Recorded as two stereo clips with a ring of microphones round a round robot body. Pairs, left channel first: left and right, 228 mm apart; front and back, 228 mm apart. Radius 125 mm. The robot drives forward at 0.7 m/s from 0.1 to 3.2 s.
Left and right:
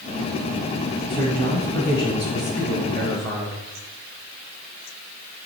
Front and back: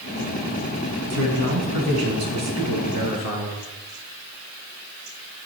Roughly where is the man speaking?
Behind.